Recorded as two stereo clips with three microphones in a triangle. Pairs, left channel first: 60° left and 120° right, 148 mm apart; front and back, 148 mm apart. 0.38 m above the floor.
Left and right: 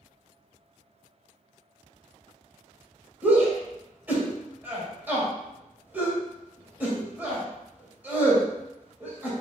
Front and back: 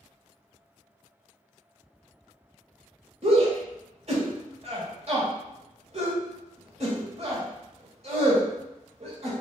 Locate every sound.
3.2 s a shout: 165° left, 1.8 m